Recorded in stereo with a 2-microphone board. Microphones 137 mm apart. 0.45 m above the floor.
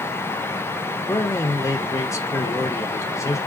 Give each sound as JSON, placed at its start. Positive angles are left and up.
{"t": 1.1, "sound": "a man speaking", "side_deg": 20, "distance_m": 0.9}